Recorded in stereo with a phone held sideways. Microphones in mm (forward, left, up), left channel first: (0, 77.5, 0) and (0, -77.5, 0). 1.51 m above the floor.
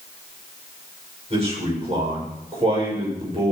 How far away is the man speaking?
About 7 m.